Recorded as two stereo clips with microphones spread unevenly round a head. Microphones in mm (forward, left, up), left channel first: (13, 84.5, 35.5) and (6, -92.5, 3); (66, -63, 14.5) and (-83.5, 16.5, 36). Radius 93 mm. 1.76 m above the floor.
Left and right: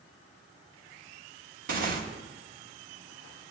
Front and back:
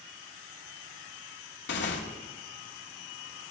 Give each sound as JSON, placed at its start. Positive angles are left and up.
{"t": 1.7, "sound": "tearing paper", "azimuth_deg": -50, "distance_m": 1.9}